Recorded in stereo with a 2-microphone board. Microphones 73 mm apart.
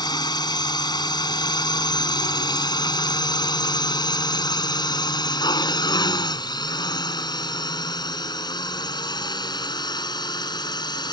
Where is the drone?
75° left (ahead or behind); by 11.1 s 80° left.